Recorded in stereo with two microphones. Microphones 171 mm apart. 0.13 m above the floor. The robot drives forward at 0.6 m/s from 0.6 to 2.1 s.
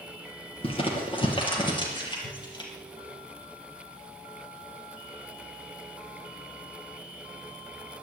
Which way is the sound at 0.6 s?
35° left (ahead or behind).